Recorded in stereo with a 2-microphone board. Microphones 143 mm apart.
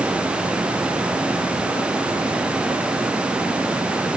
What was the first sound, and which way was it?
Only background noise.